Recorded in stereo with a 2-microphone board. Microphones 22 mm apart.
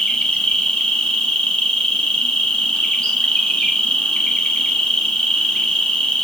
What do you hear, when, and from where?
0.0 s an insect: 55° left (ahead or behind), 1.0 m